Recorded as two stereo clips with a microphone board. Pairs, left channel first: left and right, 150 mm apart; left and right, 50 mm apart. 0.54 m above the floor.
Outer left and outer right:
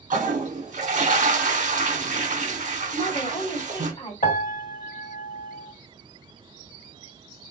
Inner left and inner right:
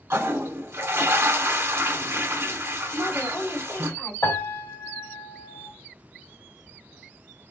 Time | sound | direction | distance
0.1 | a toilet flushing | 55° right (ahead or behind) | 0.8 m
2.9 | a woman speaking | 40° left (ahead or behind) | 2.0 m
4.2 | a piano | 75° left (ahead or behind) | 1.6 m